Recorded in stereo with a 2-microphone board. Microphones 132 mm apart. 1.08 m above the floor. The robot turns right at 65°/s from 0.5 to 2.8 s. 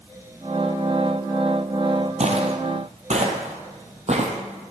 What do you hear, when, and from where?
2.2 s footsteps: 60° right (ahead or behind), 2.0 m; by 4.7 s 50° right (ahead or behind), 2.5 m